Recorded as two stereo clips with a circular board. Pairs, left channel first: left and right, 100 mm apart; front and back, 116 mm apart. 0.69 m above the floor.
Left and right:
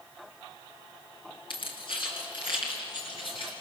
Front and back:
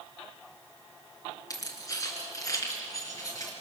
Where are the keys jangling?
55° left, 5 m; by 3.5 s 60° left, 6 m.